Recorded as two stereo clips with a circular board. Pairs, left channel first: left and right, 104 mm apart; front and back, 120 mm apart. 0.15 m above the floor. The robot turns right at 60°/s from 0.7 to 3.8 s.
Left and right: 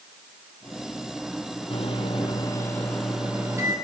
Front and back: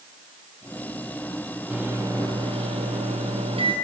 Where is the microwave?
95° left, 4.5 m; by 3.7 s 140° right, 4.5 m.